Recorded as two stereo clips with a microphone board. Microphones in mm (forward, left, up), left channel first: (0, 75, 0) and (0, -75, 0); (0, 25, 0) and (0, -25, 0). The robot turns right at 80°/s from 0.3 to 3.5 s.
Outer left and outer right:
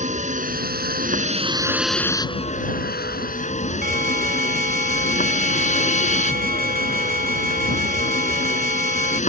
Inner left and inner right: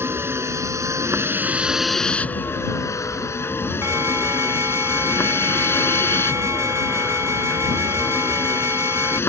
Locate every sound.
0.0 s a vehicle: 130° right; by 9.3 s 130° left
3.8 s an alarm: 75° right (ahead or behind)